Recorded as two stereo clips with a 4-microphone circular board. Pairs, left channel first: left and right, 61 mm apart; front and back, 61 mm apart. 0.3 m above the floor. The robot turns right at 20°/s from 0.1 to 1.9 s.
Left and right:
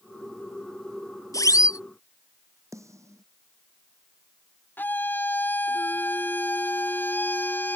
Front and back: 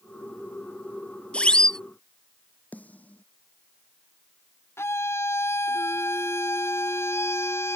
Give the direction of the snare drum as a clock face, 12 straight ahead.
2 o'clock.